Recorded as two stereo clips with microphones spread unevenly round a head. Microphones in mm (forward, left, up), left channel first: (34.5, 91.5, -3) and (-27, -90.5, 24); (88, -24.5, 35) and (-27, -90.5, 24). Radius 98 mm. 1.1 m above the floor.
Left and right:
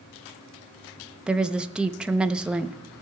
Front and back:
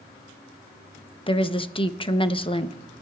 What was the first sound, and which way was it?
A woman speaking, 20° right.